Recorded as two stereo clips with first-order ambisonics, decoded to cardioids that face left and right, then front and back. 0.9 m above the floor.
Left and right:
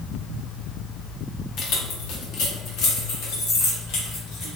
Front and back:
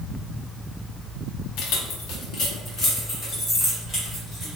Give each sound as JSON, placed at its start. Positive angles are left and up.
{"t": 1.6, "sound": "keys jangling", "azimuth_deg": 35, "distance_m": 0.8}